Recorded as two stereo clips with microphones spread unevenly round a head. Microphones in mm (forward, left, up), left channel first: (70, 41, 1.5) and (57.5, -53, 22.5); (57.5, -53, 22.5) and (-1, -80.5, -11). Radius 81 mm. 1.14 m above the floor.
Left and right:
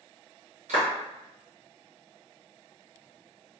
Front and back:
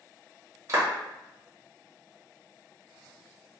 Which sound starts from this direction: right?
A clap, at 0.7 s.